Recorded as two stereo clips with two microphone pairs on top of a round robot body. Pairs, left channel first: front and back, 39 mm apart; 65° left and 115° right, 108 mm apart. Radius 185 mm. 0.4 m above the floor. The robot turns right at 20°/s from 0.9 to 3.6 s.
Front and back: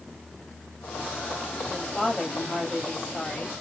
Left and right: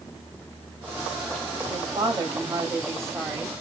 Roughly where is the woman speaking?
Right.